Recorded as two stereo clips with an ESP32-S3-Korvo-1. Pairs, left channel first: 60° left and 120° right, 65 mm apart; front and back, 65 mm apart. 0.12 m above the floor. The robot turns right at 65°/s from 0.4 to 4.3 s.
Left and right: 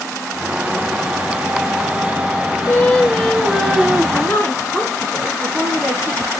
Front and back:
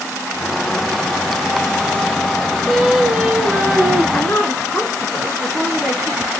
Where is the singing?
85° left, 0.9 m; by 4.0 s 175° left, 0.9 m.